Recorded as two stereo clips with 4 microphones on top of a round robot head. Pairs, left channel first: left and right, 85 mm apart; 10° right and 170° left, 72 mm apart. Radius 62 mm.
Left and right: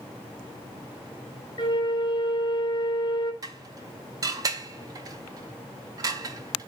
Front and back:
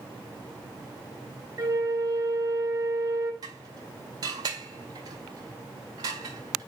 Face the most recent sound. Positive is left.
turn(degrees=-140)